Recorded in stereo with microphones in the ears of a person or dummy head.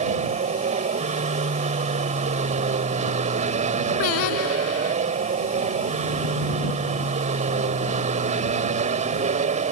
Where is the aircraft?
35° right (ahead or behind).